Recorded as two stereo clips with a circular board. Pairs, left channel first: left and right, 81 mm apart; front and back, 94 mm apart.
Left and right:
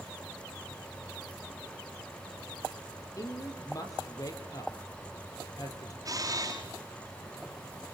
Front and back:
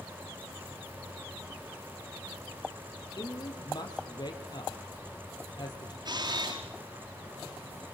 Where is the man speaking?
45° left, 4 m.